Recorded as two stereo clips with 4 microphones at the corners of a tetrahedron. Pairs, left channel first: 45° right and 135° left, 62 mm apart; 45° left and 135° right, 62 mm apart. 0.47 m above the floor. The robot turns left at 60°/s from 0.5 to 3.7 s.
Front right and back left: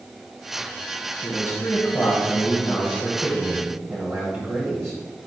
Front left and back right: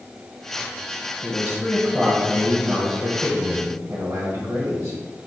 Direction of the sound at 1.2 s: 30° right.